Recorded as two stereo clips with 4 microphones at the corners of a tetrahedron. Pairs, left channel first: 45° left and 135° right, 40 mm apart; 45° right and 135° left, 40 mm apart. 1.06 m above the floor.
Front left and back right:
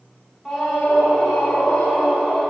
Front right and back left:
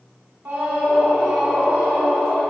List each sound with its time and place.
0.5 s a scream: 135° left, 1.5 m; by 2.4 s 105° left, 3 m